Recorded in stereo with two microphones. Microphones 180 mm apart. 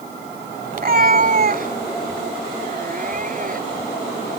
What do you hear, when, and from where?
0.7 s a cat meowing: 50° right (ahead or behind)